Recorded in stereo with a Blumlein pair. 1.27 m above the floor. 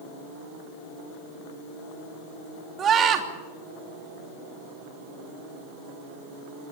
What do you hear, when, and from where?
2.8 s a scream: 25° right, 3 m